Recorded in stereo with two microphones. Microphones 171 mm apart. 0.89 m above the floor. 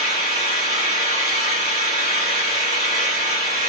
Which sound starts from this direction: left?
An engine running, at 0.0 s.